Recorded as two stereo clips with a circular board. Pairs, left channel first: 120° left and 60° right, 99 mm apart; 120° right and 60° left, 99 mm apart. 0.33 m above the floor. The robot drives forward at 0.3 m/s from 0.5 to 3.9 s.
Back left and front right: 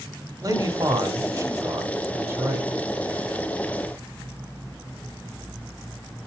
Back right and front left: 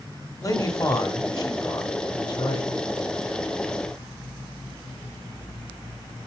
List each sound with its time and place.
0.4 s a man speaking: 85° right, 1.7 m; by 2.7 s 120° right, 1.8 m